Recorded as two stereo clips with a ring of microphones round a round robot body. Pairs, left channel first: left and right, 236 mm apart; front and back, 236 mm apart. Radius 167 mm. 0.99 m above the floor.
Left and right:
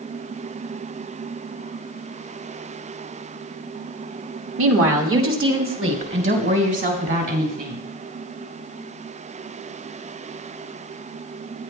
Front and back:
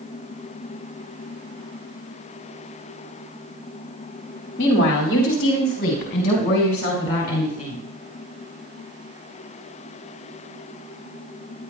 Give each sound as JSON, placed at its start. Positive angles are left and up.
{"t": 4.6, "sound": "a woman speaking", "azimuth_deg": -60, "distance_m": 1.6}